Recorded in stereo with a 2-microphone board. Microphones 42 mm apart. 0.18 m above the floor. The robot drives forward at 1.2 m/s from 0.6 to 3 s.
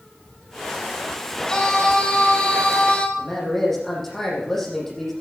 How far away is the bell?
No bell in this recording.